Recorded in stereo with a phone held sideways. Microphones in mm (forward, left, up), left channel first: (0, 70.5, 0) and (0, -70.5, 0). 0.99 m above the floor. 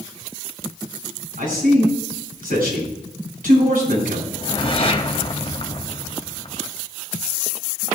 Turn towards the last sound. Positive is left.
turn(degrees=40)  # may be behind; listen again after turning